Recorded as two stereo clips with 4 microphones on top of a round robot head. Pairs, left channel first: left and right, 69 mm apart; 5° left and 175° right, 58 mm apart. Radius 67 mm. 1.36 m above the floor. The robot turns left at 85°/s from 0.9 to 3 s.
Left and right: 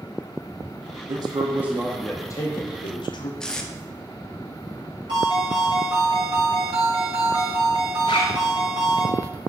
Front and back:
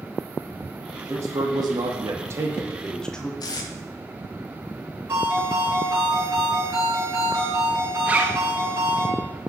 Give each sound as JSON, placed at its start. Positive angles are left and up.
{"t": 1.1, "sound": "a man speaking", "azimuth_deg": -115, "distance_m": 0.9}
{"t": 3.4, "sound": "tape being pulled", "azimuth_deg": 10, "distance_m": 0.8}
{"t": 5.1, "sound": "a ringtone", "azimuth_deg": -115, "distance_m": 4.0}
{"t": 8.1, "sound": "a zipper", "azimuth_deg": 125, "distance_m": 0.7}